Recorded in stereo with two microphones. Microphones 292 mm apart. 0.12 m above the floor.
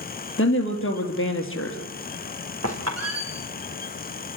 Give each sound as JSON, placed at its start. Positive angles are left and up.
{"t": 0.4, "sound": "a woman speaking", "side_deg": 45, "distance_m": 3.0}
{"t": 2.6, "sound": "a squeak", "side_deg": -55, "distance_m": 3.5}